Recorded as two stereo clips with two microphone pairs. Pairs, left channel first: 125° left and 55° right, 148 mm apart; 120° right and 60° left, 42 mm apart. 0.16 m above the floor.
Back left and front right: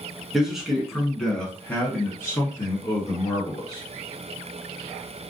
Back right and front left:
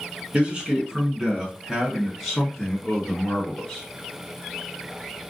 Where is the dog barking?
No dog barking in this recording.